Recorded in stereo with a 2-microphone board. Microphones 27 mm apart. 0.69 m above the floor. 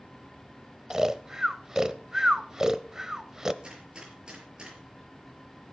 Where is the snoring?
25° right (ahead or behind), 0.7 m.